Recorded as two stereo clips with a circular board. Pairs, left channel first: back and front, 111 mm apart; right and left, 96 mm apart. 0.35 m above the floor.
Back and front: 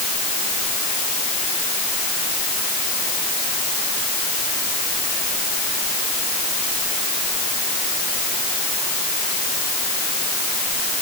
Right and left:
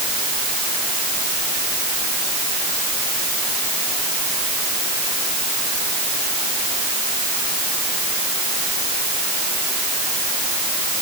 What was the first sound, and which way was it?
Only background noise.